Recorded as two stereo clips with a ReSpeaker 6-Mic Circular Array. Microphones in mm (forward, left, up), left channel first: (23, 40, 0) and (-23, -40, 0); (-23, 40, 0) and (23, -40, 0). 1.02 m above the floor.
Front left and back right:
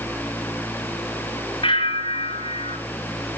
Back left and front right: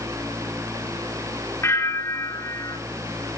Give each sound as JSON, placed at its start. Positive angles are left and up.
{"t": 1.6, "sound": "a bell", "azimuth_deg": 60, "distance_m": 3.5}